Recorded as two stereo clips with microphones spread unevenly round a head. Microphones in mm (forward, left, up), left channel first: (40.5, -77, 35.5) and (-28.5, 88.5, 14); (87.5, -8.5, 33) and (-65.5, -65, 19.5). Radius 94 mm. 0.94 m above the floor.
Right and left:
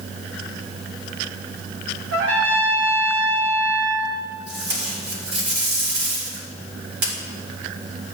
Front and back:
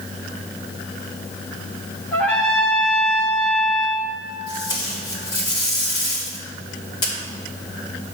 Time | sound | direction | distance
2.1 | a trumpet | 105° left | 1.9 m
4.5 | tape being pulled | 90° left | 3 m